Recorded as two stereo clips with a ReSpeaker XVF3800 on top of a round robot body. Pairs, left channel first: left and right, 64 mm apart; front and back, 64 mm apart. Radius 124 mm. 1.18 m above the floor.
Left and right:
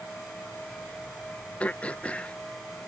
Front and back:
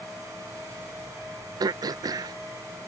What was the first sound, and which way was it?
Throat clearing, 160° left.